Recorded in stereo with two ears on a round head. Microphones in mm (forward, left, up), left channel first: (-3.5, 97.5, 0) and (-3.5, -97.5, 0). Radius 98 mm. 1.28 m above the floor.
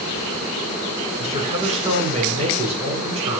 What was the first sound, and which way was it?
A man speaking, 30° right (ahead or behind).